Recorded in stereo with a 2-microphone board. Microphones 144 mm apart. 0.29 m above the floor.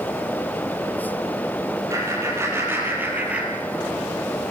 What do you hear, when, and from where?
1.9 s laughter: 20° right (ahead or behind), 8 m; by 4.0 s centre (ahead or behind), 6 m